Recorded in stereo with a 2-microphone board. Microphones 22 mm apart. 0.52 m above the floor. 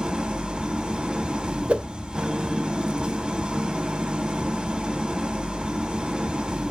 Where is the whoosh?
60° right (ahead or behind), 0.5 m.